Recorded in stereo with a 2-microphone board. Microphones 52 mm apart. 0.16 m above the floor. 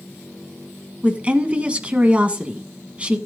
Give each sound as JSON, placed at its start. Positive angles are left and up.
{"t": 1.0, "sound": "a woman speaking", "side_deg": -25, "distance_m": 1.2}